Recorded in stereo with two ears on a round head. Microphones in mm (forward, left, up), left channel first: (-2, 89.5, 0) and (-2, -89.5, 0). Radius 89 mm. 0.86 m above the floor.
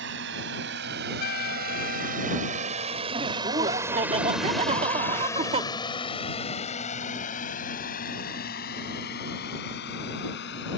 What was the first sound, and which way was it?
A drone, 65° right (ahead or behind).